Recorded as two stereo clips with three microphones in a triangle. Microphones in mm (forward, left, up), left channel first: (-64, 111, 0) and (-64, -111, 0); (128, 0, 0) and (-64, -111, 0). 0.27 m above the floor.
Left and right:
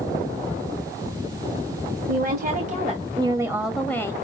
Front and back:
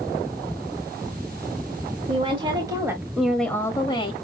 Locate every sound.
2.1 s a woman speaking: 95° right, 1.8 m; by 4.1 s 35° left, 1.3 m